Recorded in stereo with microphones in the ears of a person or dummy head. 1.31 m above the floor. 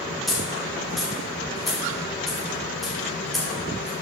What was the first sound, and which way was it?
A dropped coin, centre (ahead or behind).